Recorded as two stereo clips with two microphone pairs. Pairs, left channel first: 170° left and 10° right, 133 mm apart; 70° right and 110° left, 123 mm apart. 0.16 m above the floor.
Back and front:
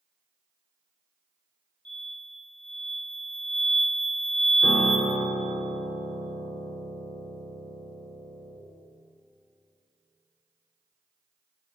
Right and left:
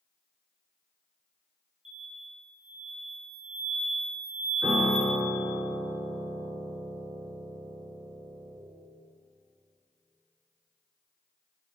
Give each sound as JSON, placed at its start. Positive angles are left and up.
{"t": 1.9, "sound": "an explosion", "azimuth_deg": 90, "distance_m": 3.0}
{"t": 4.6, "sound": "a piano", "azimuth_deg": 155, "distance_m": 1.6}